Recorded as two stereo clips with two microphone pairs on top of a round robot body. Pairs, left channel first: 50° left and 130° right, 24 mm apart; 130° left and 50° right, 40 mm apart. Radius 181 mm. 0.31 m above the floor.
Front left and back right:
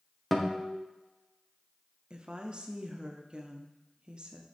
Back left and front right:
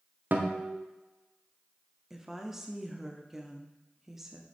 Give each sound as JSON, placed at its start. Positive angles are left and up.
{"t": 0.3, "sound": "a guitar", "azimuth_deg": -20, "distance_m": 1.3}
{"t": 2.1, "sound": "a woman speaking", "azimuth_deg": -130, "distance_m": 1.1}